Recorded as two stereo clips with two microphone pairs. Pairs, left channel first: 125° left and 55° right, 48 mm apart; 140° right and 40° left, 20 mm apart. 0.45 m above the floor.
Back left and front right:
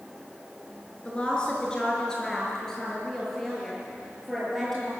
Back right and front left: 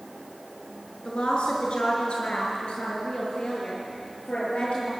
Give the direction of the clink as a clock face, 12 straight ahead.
No clink in this recording.